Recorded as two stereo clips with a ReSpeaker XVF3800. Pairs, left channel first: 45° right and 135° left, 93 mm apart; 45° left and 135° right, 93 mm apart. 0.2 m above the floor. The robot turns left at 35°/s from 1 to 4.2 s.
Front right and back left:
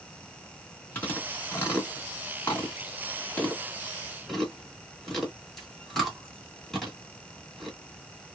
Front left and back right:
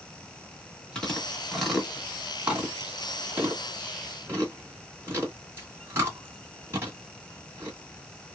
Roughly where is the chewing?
Ahead.